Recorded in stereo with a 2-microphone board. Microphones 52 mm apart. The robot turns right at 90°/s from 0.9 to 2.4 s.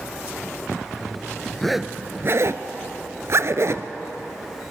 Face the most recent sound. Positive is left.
turn(degrees=-60)  # may be behind; listen again after turning